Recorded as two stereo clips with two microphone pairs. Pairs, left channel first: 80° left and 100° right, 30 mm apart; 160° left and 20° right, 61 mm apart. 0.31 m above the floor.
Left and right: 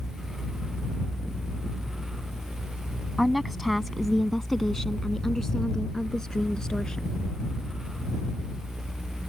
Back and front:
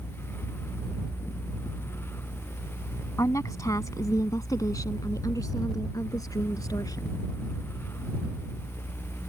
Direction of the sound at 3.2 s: 175° left.